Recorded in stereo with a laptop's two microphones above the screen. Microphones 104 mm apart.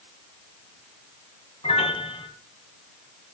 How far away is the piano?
About 3 m.